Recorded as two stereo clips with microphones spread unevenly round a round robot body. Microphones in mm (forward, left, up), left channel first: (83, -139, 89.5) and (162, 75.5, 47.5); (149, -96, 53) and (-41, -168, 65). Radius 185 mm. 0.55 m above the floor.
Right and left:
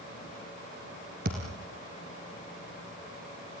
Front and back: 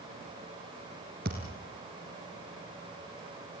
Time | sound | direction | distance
1.2 | a thud | 135° left | 1.8 m